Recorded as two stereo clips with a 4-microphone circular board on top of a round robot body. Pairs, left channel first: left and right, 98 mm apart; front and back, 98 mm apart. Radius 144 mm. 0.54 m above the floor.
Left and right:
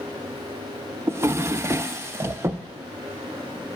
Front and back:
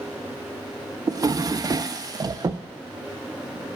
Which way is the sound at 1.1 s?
145° right.